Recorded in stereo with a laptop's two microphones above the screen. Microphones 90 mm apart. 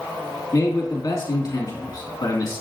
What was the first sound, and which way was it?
A man speaking, 40° left (ahead or behind).